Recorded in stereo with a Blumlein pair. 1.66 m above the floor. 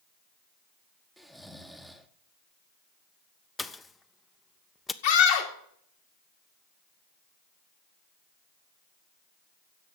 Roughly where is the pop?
Ahead.